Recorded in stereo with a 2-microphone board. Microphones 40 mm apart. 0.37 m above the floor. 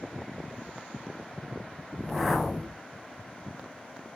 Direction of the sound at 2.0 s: Centre (ahead or behind).